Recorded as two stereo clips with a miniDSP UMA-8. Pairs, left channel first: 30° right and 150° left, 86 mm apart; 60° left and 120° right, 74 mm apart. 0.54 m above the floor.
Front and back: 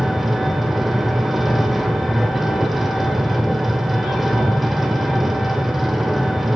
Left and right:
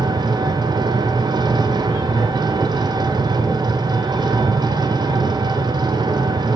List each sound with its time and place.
0.0 s an engine running: 120° right, 1.3 m